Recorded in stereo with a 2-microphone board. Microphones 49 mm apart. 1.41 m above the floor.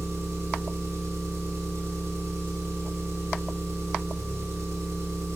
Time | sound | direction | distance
0.0 | an engine running | 85° right | 3.5 m